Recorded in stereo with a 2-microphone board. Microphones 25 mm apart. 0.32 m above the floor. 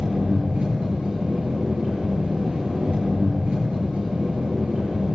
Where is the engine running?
50° right (ahead or behind), 4.5 m.